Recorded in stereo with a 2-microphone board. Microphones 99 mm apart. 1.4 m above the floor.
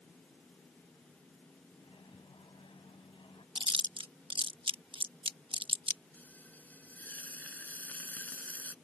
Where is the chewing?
60° right (ahead or behind).